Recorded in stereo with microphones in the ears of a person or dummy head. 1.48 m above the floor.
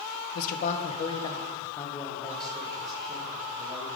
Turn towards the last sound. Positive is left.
turn(degrees=-5)  # may be behind; listen again after turning